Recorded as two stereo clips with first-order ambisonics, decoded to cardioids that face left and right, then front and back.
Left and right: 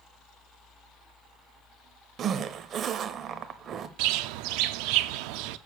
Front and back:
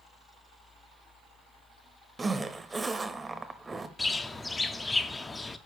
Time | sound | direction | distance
2.2 | a zipper | 115° right | 0.5 m
4.0 | a bird | 80° right | 0.5 m